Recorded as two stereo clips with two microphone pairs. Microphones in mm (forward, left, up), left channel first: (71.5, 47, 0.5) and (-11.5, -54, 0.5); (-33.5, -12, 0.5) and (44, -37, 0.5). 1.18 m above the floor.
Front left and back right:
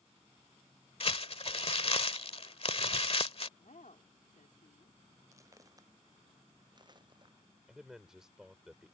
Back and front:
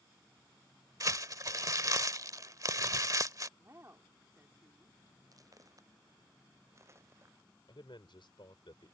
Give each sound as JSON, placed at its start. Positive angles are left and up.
{"t": 1.0, "sound": "crumpling", "azimuth_deg": 20}
{"t": 3.6, "sound": "a woman speaking", "azimuth_deg": 40}
{"t": 5.3, "sound": "footsteps", "azimuth_deg": -65}
{"t": 7.7, "sound": "a man speaking", "azimuth_deg": 145}